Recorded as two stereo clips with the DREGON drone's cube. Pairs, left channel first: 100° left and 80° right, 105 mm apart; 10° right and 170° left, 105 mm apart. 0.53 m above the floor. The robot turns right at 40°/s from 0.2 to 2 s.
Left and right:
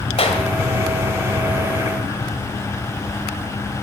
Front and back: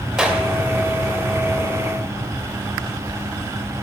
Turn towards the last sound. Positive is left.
turn(degrees=160)